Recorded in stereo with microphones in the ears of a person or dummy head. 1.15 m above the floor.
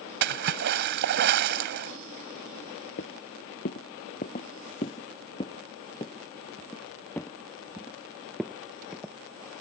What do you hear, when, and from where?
0.2 s a splash: 55° right (ahead or behind)
3.0 s footsteps: 50° left (ahead or behind); by 9.1 s 5° right (ahead or behind)